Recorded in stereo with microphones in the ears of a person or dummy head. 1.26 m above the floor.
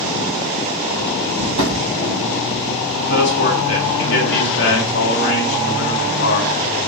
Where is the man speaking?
55° left (ahead or behind), 2.5 m.